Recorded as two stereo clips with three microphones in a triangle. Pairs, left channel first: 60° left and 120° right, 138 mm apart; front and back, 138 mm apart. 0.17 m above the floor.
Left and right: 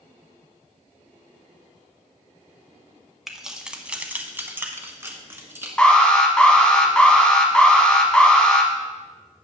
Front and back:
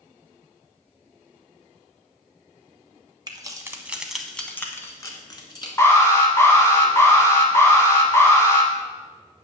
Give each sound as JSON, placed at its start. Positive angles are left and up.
{"t": 3.3, "sound": "keys jangling", "azimuth_deg": 155, "distance_m": 0.9}
{"t": 5.8, "sound": "an alarm", "azimuth_deg": -10, "distance_m": 1.2}